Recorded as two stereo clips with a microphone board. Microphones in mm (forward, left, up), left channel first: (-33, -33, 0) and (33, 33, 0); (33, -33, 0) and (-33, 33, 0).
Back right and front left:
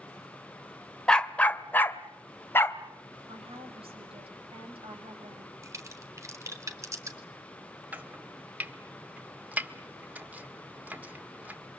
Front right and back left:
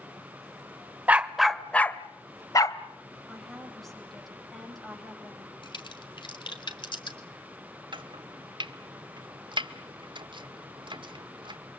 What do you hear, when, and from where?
1.1 s a dog barking: 165° left, 1.1 m; by 2.8 s 75° right, 1.7 m
3.3 s a woman speaking: 45° left, 9.5 m
5.6 s a crack: 15° right, 3 m
7.9 s chopping: 115° left, 1.8 m